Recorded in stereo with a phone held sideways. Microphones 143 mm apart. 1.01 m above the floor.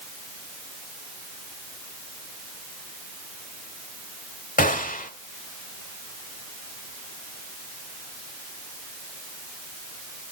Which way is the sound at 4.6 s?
75° left (ahead or behind).